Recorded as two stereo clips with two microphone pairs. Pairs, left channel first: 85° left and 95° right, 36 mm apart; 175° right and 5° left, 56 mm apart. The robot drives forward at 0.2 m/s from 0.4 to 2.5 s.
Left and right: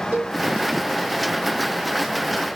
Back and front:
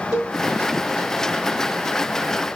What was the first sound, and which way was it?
A cowbell, 75° right.